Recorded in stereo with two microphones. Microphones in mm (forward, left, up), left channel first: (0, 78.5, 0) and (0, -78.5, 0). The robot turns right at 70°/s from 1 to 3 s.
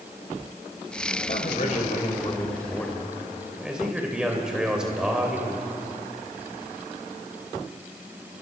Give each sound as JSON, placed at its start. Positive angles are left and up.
{"t": 1.2, "sound": "a man speaking", "azimuth_deg": 60, "distance_m": 2.5}